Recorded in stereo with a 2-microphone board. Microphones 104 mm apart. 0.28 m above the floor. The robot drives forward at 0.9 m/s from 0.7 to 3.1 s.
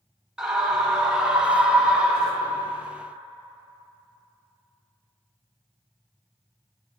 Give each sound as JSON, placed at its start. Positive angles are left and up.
{"t": 0.4, "sound": "a scream", "side_deg": -5, "distance_m": 1.9}